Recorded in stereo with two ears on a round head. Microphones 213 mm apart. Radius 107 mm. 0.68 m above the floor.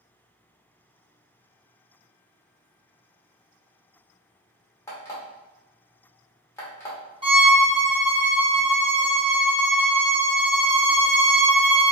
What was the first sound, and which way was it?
An alarm clock, 10° left (ahead or behind).